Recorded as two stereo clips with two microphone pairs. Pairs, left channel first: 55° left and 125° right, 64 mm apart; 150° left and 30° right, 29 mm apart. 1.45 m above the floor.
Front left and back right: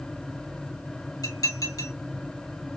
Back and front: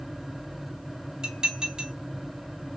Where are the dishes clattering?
30° left, 2.5 m.